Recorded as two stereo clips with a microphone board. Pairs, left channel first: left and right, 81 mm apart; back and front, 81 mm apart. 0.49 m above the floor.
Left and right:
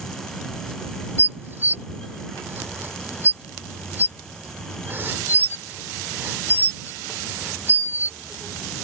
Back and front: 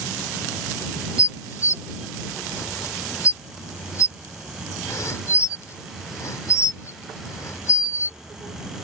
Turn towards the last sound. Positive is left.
turn(degrees=-145)